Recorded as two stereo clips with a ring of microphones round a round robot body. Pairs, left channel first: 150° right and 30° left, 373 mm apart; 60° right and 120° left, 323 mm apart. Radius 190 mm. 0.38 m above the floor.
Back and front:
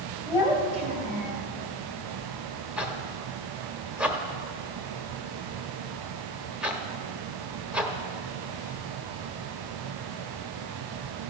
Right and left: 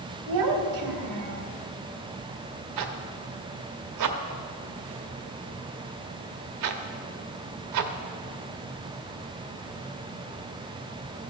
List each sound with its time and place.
0.3 s a child speaking: 115° left, 1.8 m; by 1.5 s 85° left, 1.6 m
2.8 s a zipper: 115° left, 0.8 m